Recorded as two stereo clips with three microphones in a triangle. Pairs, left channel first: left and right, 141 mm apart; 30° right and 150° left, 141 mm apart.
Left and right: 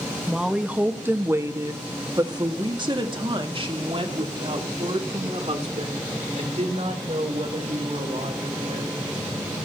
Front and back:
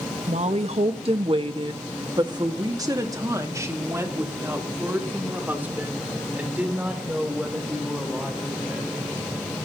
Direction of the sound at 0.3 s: 175° right.